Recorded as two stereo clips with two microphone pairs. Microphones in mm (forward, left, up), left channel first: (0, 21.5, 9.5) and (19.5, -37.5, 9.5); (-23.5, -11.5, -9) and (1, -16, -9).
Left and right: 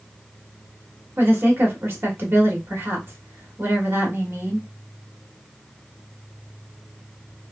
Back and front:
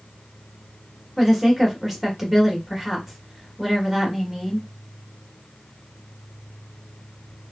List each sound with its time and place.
1.2 s a woman speaking: 90° right, 1.2 m